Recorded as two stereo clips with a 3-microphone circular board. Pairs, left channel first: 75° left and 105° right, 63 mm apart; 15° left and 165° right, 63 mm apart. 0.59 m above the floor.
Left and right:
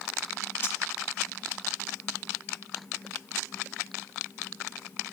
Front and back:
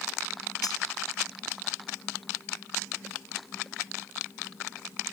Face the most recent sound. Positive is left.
turn(degrees=20)